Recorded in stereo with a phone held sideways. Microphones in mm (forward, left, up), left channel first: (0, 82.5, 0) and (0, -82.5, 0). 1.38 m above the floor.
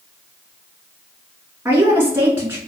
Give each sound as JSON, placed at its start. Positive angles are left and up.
{"t": 1.6, "sound": "a woman speaking", "side_deg": -15, "distance_m": 1.7}